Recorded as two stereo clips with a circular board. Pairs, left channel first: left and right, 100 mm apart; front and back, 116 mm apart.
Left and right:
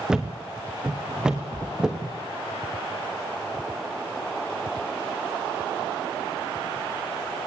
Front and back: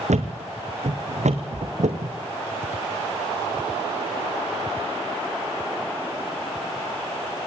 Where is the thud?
175° right, 2.5 m.